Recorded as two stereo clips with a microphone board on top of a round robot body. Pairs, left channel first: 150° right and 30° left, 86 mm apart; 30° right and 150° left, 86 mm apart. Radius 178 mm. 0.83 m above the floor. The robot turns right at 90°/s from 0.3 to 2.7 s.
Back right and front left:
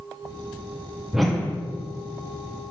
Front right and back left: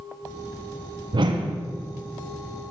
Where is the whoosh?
115° left, 0.6 m; by 1.6 s 155° left, 0.6 m.